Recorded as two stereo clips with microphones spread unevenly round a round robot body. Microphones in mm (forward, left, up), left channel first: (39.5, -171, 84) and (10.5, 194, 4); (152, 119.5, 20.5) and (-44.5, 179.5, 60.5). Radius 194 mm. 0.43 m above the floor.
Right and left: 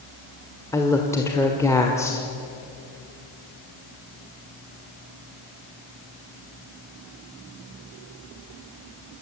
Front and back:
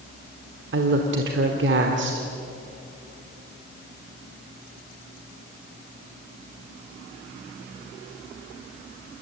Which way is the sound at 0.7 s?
175° right.